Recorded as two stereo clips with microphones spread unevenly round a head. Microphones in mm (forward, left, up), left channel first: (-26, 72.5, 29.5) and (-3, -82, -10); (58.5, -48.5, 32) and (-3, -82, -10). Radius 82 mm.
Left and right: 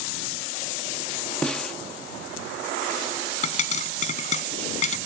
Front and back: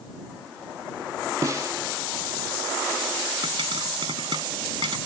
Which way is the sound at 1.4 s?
125° left.